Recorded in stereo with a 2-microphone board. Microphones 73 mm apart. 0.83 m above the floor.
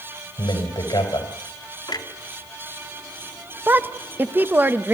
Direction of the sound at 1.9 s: 70° left (ahead or behind).